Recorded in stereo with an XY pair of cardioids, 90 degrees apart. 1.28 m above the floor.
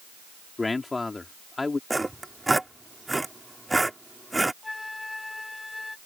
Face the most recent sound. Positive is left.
turn(degrees=20)